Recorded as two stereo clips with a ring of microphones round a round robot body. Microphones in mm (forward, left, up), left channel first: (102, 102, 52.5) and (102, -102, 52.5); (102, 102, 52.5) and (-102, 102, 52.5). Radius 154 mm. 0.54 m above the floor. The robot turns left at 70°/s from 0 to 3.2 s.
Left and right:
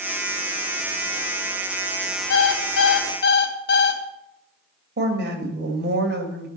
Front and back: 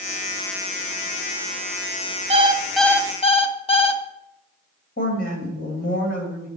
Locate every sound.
2.3 s an alarm clock: 125° left, 1.9 m; by 4.0 s 60° left, 1.9 m
5.0 s a woman speaking: 60° right, 2.5 m